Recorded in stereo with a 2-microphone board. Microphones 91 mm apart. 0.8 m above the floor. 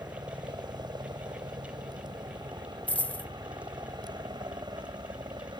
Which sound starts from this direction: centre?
A dropped coin, at 2.9 s.